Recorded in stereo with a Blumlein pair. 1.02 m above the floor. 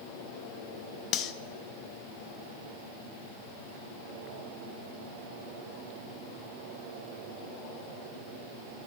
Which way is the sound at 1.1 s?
35° left.